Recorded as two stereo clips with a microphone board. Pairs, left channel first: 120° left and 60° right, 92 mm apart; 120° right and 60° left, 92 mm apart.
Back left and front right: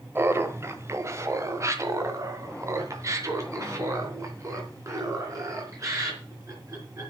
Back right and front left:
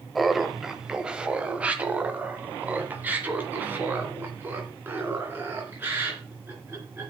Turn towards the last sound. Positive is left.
turn(degrees=-5)